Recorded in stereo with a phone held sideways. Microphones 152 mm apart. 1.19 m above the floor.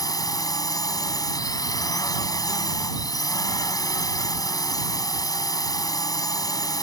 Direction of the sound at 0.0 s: 25° left (ahead or behind).